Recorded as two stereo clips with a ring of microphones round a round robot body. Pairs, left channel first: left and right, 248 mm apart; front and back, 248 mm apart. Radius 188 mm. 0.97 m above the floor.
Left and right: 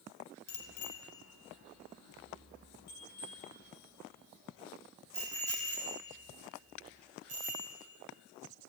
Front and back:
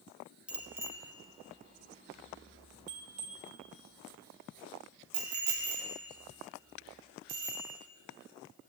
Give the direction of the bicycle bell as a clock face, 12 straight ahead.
9 o'clock.